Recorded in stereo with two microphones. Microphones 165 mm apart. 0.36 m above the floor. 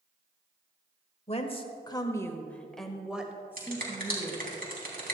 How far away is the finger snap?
About 3 m.